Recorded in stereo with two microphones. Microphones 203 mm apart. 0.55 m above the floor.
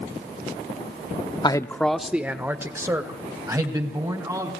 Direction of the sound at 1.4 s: 20° left (ahead or behind).